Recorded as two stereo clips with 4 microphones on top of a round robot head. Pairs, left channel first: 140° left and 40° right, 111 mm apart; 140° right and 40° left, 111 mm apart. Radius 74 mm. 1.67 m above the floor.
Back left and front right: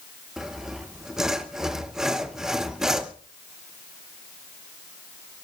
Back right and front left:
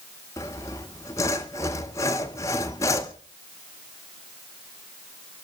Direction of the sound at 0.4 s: 120° right.